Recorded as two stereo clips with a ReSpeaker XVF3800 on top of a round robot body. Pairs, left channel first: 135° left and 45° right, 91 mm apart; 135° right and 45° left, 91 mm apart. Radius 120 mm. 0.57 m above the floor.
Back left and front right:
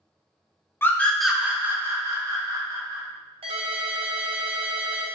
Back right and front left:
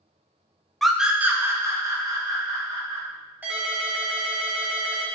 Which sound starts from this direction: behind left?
A scream, at 0.8 s.